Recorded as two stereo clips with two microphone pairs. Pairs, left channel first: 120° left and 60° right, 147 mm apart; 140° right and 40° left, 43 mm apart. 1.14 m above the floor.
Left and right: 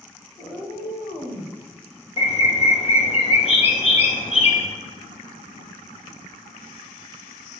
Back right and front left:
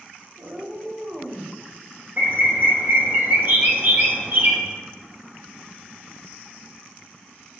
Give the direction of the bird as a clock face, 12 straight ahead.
9 o'clock.